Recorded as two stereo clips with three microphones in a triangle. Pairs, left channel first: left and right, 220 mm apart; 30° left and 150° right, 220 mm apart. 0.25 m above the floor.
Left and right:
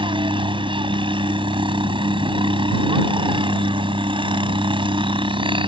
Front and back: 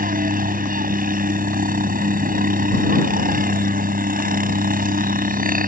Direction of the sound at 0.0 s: 145° right.